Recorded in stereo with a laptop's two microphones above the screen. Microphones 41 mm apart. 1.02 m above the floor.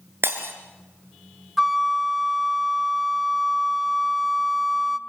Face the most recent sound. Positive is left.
turn(degrees=0)  # may be behind; listen again after turning